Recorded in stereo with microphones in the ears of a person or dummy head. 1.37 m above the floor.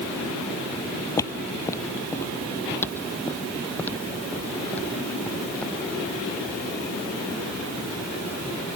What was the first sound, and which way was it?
Footsteps, 15° left (ahead or behind).